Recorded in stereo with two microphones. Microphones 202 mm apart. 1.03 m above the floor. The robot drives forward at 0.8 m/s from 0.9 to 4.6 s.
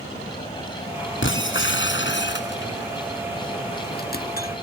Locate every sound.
1.2 s breaking glass: 70° left (ahead or behind); by 4.5 s 45° left (ahead or behind)